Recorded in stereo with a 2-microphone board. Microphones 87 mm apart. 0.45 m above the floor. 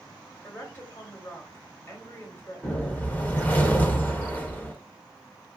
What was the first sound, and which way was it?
A woman speaking, 25° left (ahead or behind).